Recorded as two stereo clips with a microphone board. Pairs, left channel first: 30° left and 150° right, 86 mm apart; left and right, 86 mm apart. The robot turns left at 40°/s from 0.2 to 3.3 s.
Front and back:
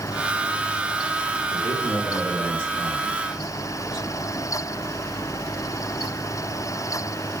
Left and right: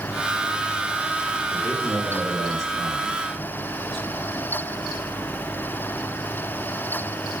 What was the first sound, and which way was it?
A man speaking, straight ahead.